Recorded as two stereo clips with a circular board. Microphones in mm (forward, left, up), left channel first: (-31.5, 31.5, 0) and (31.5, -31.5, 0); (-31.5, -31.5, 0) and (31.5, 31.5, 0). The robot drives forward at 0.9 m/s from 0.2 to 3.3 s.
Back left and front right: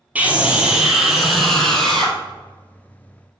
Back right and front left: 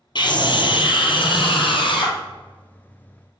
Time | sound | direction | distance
0.1 | a scream | 115° right | 2.5 m